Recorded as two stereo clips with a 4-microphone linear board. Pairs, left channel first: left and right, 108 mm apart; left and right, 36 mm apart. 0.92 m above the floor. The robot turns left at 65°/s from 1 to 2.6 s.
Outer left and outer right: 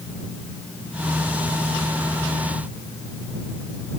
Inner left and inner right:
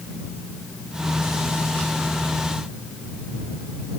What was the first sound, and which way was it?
Only background noise.